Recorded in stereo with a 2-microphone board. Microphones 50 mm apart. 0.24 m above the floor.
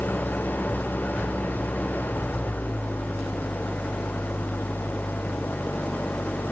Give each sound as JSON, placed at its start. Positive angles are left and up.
{"t": 0.0, "sound": "an engine running", "side_deg": 40}